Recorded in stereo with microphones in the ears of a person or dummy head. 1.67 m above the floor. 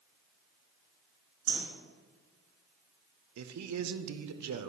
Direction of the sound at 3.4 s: 85° right.